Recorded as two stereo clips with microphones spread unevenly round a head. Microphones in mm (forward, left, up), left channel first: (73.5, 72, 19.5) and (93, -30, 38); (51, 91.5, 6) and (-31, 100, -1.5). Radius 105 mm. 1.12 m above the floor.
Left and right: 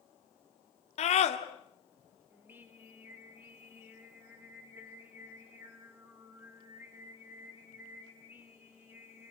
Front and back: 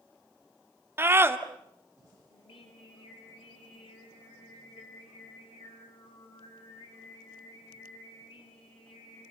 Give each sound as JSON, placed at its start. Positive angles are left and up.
{"t": 1.0, "sound": "a scream", "azimuth_deg": 115, "distance_m": 2.5}
{"t": 2.3, "sound": "singing", "azimuth_deg": -10, "distance_m": 3.5}